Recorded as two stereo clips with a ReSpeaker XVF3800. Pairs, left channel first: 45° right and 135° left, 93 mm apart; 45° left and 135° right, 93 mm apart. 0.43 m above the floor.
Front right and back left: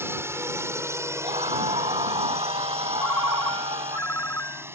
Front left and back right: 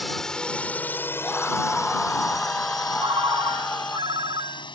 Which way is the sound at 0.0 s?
130° left.